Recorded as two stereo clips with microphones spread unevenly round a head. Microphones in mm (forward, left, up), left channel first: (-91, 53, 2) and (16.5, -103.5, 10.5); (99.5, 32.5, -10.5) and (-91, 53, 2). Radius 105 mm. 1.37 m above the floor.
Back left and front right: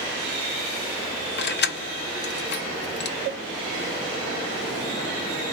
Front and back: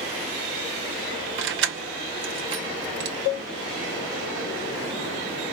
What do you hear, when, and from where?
1.4 s keys jangling: 155° left, 0.8 m
3.2 s a cowbell: 10° right, 3 m